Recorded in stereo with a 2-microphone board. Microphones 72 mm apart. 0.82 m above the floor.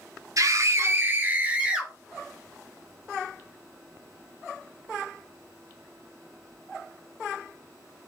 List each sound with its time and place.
0.4 s a scream: 55° right (ahead or behind), 1.5 m; by 1.9 s 15° right (ahead or behind), 2.5 m